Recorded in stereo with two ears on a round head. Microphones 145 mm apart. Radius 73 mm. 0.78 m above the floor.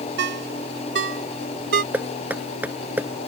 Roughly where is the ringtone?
Right.